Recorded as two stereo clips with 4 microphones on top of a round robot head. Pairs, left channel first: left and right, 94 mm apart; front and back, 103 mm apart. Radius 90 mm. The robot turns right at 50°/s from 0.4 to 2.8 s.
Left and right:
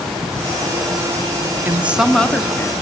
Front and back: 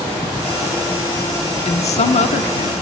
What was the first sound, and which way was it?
A woman speaking, 20° right.